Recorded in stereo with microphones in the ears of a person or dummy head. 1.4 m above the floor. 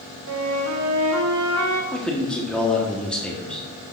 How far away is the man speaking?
About 1.4 m.